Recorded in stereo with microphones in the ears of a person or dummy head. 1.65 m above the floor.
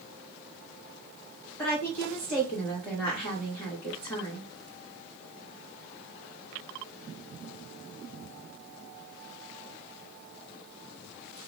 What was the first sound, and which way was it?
A woman speaking, 15° left (ahead or behind).